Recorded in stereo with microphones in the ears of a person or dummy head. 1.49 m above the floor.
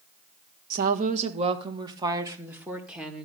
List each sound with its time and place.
0.7 s a woman speaking: 55° right (ahead or behind), 1.4 m; by 3.3 s 5° right (ahead or behind), 2.0 m